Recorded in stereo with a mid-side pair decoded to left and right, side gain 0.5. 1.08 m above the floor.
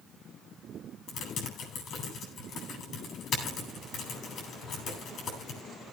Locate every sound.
1.1 s typing on a keyboard: 55° left, 9.5 m